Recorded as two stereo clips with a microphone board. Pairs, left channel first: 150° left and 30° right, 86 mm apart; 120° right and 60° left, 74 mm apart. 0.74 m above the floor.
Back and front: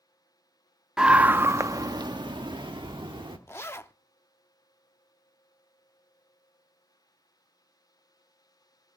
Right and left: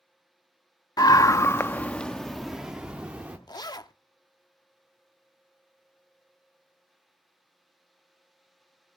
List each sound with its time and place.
1.0 s a scream: 110° right, 0.9 m; by 3.4 s 10° right, 1.7 m
3.5 s a zipper: 150° right, 0.7 m